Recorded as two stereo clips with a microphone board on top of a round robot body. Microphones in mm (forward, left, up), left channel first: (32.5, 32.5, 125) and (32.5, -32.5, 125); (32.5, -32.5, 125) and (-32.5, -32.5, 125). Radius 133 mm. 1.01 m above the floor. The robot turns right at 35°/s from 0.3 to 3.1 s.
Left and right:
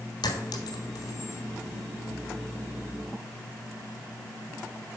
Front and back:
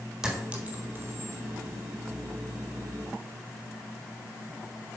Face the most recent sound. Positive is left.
turn(degrees=-165)